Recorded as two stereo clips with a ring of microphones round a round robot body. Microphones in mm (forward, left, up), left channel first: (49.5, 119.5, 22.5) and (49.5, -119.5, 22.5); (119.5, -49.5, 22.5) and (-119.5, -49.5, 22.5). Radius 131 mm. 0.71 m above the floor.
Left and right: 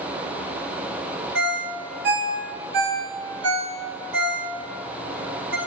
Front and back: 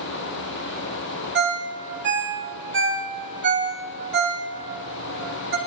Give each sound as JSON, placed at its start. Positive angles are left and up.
{"t": 1.4, "sound": "a ringtone", "azimuth_deg": -140, "distance_m": 2.0}